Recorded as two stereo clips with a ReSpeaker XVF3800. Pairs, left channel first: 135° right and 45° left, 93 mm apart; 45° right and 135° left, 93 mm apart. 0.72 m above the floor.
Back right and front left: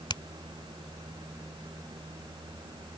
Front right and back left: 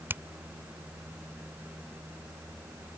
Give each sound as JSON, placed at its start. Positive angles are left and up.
{"t": 0.1, "sound": "a finger snap", "azimuth_deg": -160}